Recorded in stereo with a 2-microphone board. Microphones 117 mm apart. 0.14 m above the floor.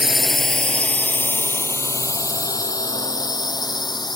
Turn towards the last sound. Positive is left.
turn(degrees=35)  # may be behind; listen again after turning